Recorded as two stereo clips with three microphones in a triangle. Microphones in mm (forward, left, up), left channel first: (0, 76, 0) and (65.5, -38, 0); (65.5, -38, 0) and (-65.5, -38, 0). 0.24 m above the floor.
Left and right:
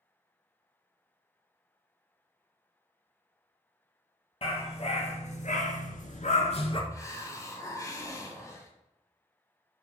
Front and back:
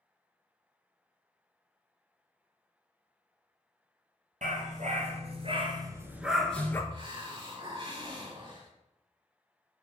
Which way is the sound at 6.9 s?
170° left.